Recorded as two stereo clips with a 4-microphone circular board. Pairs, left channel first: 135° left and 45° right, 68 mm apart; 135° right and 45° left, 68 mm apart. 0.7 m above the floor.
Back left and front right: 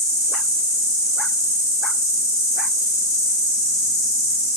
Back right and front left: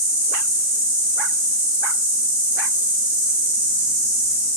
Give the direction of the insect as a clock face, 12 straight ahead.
8 o'clock.